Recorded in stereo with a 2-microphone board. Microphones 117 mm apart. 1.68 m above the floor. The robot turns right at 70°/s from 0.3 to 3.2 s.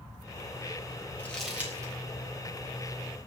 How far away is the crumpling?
About 3.5 m.